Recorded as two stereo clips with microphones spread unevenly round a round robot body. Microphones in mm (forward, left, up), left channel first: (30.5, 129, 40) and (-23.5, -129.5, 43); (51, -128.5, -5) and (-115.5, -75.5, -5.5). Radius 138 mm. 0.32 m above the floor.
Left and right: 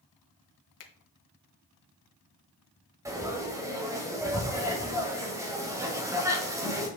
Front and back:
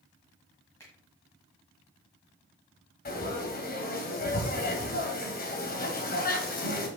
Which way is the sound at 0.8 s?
60° left.